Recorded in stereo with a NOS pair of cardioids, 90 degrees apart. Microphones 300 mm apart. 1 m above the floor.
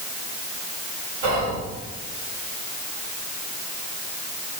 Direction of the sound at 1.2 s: 70° right.